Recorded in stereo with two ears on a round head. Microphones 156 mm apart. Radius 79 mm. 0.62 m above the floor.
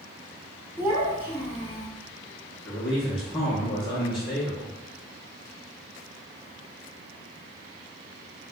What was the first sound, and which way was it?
A child speaking, 10° right (ahead or behind).